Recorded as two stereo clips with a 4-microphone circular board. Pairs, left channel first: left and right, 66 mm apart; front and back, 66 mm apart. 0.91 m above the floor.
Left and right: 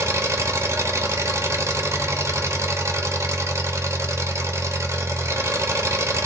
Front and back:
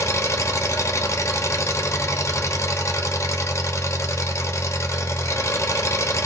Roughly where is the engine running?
Ahead right.